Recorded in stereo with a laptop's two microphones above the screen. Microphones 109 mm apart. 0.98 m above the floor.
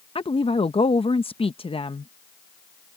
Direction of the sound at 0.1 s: 60° left (ahead or behind).